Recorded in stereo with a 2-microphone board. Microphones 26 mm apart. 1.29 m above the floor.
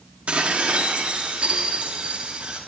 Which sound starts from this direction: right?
Dishes clattering, at 0.3 s.